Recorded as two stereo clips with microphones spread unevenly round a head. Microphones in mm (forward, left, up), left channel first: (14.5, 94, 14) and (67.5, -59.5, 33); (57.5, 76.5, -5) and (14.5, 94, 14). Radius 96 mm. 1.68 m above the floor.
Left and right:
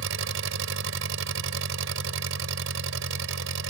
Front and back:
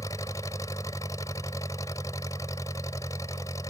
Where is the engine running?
80° right.